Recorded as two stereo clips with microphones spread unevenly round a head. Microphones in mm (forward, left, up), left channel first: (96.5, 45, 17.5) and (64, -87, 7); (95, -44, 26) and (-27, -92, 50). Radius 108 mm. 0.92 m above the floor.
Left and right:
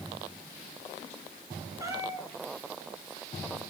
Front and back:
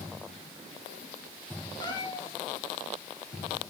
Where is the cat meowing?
35° right, 5.5 m.